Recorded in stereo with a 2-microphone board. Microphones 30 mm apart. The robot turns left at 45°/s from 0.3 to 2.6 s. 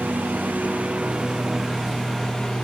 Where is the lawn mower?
100° right; by 2.6 s 155° left.